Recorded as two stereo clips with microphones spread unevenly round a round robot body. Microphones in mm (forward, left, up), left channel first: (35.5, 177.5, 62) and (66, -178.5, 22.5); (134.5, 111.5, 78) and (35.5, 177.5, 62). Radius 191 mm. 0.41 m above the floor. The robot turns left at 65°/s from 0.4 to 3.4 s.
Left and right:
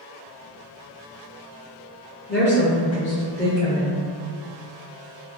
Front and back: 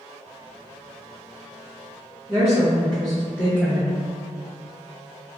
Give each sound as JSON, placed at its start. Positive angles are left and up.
{"t": 2.3, "sound": "a woman speaking", "azimuth_deg": 120, "distance_m": 1.1}